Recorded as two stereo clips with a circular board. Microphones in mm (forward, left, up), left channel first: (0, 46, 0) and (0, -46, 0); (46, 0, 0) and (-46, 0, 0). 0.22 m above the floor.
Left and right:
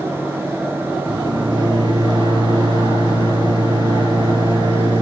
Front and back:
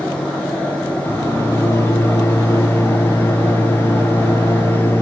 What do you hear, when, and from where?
1.1 s a microwave: 65° right, 4.5 m